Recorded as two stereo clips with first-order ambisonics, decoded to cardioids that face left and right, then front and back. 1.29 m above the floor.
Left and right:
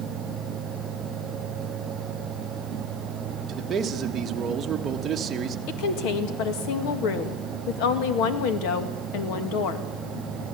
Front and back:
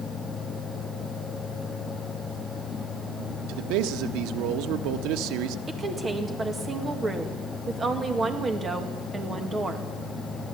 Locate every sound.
3.5 s a man speaking: 155° right, 1.4 m
5.7 s a woman speaking: 105° left, 2 m